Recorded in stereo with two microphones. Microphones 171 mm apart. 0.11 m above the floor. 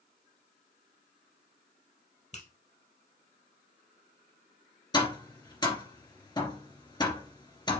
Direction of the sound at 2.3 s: 45° left (ahead or behind).